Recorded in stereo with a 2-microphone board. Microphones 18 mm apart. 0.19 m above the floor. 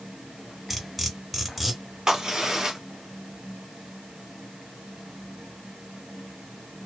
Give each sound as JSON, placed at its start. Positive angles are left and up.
{"t": 0.7, "sound": "cutlery clinking", "side_deg": -5, "distance_m": 1.2}
{"t": 2.1, "sound": "a crack", "side_deg": -45, "distance_m": 1.3}